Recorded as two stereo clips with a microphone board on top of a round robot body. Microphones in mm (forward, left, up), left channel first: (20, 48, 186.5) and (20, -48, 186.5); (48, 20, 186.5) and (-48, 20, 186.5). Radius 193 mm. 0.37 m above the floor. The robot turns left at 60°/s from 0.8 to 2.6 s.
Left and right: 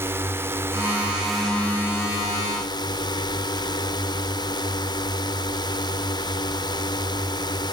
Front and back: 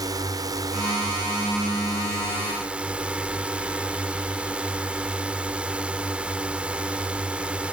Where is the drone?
150° right; by 7.7 s 105° left.